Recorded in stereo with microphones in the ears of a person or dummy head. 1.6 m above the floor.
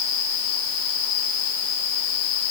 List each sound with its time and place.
Only background noise.